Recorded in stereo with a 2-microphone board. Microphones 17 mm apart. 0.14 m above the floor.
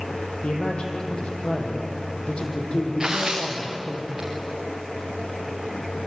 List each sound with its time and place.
0.4 s a man speaking: 75° left (ahead or behind), 6 m
3.0 s tearing paper: 30° right (ahead or behind), 6.5 m